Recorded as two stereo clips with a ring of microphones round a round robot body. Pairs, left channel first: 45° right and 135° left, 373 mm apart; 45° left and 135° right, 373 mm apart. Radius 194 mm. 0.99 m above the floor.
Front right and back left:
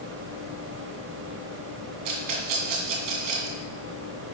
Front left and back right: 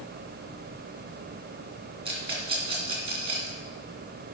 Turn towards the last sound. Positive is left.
turn(degrees=150)